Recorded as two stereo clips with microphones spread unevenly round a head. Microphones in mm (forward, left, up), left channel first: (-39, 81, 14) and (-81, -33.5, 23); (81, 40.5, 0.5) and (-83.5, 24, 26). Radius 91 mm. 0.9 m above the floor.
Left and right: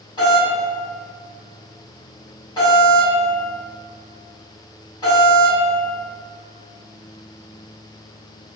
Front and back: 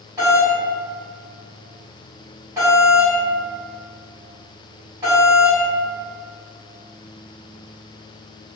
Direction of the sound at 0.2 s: 110° left.